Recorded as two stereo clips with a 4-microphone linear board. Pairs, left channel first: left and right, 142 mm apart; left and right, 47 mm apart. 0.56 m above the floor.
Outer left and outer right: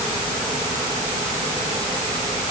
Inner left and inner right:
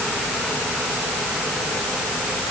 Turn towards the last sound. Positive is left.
No sound to turn to.